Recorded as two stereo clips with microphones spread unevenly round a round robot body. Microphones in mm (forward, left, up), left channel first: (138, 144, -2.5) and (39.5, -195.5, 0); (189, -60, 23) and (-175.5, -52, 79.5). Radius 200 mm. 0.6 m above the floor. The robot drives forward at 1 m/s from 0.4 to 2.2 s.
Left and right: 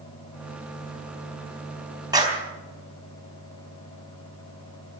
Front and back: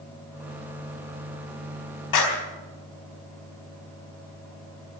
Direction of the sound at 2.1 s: 30° right.